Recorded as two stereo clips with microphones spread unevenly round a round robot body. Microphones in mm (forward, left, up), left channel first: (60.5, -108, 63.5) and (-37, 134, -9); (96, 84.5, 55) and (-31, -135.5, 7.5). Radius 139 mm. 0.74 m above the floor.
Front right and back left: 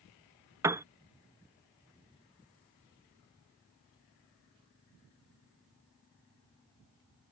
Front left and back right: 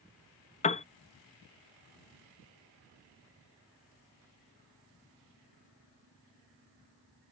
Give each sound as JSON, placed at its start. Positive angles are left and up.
{"t": 0.6, "sound": "a piano", "azimuth_deg": 115}